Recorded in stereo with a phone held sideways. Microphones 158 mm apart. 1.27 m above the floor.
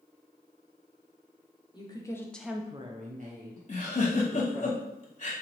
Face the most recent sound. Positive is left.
turn(degrees=50)  # may be behind; listen again after turning